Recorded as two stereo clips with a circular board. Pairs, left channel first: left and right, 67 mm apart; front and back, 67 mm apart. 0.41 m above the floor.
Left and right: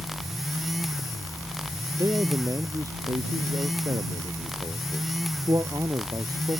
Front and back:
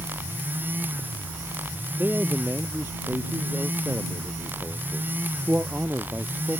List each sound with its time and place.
2.0 s a man speaking: 120° right